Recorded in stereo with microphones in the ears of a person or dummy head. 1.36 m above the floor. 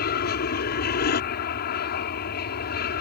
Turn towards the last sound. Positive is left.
turn(degrees=50)  # may be behind; listen again after turning